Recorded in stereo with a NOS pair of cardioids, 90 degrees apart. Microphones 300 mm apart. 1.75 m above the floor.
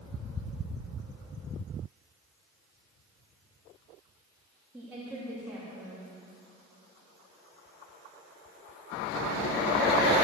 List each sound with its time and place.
4.7 s a woman speaking: 5° right, 3 m